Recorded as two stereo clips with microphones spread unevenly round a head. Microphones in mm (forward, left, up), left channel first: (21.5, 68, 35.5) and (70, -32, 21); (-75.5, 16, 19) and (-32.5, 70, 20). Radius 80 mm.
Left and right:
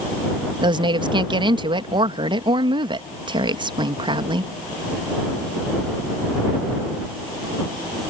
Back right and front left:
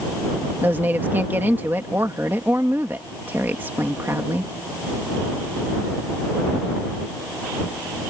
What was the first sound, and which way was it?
A woman speaking, 20° right.